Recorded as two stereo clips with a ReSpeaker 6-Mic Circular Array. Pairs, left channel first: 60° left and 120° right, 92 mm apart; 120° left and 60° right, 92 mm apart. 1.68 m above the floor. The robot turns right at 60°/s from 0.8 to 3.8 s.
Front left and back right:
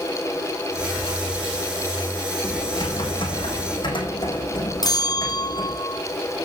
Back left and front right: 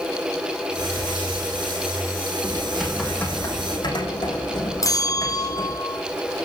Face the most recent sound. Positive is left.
turn(degrees=85)